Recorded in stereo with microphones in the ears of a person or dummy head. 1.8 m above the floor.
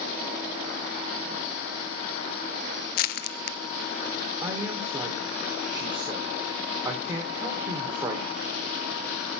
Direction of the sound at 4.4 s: 15° right (ahead or behind).